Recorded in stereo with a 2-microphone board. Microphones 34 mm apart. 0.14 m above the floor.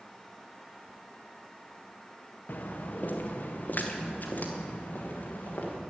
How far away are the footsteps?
About 1.3 m.